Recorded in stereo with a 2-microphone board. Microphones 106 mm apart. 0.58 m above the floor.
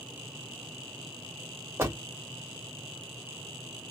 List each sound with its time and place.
1.8 s a door slam: 25° right (ahead or behind), 1.4 m